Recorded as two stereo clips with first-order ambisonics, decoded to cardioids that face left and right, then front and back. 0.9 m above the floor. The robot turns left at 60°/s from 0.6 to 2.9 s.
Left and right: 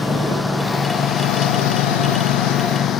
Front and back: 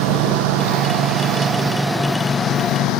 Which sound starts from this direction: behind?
A lawn mower, at 0.0 s.